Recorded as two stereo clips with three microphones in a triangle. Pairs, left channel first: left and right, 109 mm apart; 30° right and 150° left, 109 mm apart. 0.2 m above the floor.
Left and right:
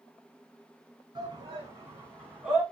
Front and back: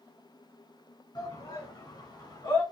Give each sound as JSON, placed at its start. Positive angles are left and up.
{"t": 1.1, "sound": "a shout", "azimuth_deg": -55, "distance_m": 2.0}